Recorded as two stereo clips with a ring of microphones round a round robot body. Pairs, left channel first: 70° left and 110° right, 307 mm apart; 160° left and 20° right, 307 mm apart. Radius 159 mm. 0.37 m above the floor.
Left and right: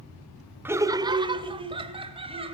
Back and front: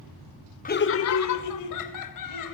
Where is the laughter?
170° left, 0.8 m; by 2.5 s 175° left, 2.5 m.